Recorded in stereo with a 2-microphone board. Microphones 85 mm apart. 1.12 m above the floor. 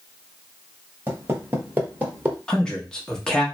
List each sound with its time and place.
1.1 s footsteps: 25° right (ahead or behind), 1.3 m; by 2.4 s 20° right (ahead or behind), 1.1 m
2.5 s a man speaking: 10° left (ahead or behind), 0.9 m